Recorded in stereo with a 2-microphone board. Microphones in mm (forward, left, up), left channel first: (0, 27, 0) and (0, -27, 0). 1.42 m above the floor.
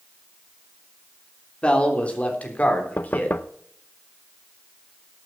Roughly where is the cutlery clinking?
No cutlery clinking in this recording.